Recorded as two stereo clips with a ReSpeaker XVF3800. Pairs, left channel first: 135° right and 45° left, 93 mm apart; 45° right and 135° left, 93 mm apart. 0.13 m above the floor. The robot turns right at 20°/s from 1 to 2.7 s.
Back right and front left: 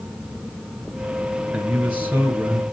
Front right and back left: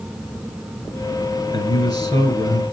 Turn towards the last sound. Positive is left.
turn(degrees=-10)